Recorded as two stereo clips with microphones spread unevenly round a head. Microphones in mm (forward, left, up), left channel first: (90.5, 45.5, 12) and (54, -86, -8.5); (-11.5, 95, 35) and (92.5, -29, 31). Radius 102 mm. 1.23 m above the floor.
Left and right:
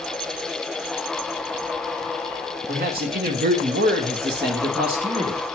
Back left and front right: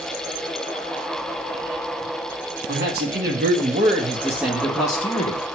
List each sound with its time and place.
2.7 s a man speaking: 90° right, 1.7 m; by 5.4 s straight behind, 0.9 m